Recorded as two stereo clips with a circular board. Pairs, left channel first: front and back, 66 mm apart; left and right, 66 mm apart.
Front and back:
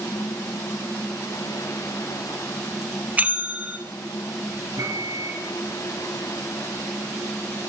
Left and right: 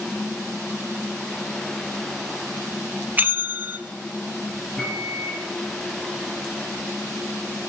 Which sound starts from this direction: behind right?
A bell, at 3.2 s.